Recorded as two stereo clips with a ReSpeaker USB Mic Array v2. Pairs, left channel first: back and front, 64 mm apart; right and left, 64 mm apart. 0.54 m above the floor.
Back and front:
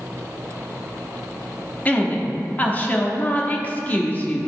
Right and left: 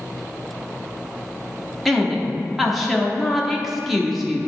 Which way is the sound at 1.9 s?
Straight behind.